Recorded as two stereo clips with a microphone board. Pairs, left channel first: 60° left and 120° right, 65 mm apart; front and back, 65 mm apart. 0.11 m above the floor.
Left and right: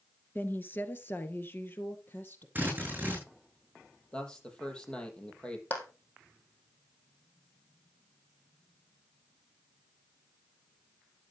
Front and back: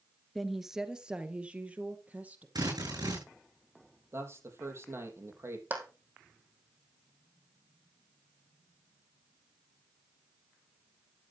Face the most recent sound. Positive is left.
turn(degrees=120)